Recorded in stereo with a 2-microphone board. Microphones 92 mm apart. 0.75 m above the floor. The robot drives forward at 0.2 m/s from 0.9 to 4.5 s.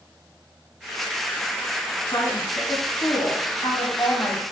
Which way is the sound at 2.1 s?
50° left (ahead or behind).